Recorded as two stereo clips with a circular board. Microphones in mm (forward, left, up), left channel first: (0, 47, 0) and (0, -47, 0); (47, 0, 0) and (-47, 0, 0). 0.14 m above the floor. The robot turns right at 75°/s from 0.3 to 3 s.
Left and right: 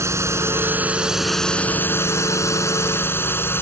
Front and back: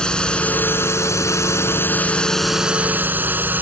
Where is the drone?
75° right; by 3.6 s 130° left.